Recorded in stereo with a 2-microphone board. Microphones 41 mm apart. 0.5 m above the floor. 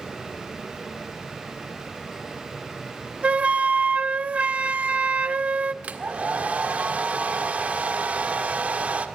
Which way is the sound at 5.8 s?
35° right (ahead or behind).